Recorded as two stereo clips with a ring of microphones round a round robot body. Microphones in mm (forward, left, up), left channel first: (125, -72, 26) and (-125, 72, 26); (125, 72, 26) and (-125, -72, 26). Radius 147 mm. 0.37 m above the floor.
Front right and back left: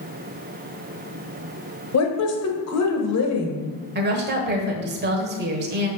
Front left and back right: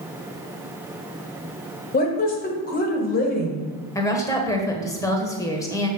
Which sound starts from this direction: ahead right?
A woman speaking, at 1.9 s.